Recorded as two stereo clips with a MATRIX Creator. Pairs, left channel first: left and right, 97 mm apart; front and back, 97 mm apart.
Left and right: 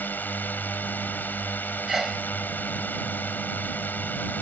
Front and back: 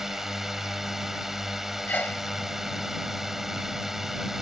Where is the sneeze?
10° right.